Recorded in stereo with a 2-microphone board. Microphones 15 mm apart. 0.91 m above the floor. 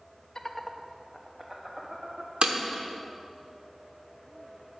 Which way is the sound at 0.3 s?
40° left (ahead or behind).